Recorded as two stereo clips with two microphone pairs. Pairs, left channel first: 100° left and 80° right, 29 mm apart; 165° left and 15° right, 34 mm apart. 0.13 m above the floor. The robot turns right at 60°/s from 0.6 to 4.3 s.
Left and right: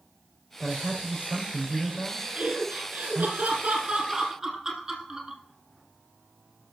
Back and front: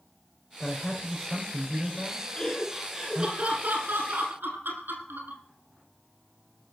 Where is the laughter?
120° right, 5.5 m; by 5.4 s 5° right, 5.5 m.